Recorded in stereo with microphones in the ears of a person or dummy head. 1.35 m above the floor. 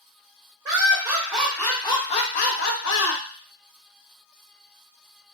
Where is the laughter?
20° right (ahead or behind), 1.1 m; by 3.2 s 70° left (ahead or behind), 0.9 m.